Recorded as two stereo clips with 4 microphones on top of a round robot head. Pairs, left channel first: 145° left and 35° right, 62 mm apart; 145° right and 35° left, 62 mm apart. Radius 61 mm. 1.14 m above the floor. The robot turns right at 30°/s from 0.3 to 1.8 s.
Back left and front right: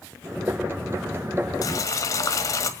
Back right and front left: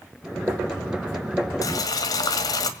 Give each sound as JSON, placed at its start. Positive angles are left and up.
{"t": 1.6, "sound": "boiling", "azimuth_deg": 180, "distance_m": 1.8}